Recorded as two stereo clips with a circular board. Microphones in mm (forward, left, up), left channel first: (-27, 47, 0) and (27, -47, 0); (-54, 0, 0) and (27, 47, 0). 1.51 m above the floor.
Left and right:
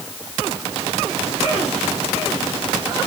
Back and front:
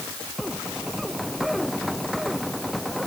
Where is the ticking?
No ticking in this recording.